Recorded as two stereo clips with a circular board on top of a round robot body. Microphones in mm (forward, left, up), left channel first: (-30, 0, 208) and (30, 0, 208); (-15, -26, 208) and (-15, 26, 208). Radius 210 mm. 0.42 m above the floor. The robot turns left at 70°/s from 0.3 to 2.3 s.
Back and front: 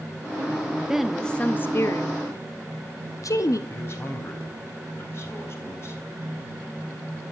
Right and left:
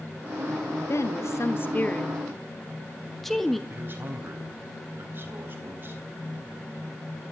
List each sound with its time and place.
0.9 s a woman speaking: 80° right, 1.6 m; by 3.6 s 175° right, 1.6 m
3.7 s a man speaking: 135° left, 4 m